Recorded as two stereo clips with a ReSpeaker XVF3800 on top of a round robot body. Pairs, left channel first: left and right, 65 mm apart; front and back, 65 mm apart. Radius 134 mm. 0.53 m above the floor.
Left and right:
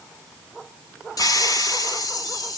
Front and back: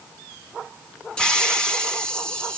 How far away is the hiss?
About 4 m.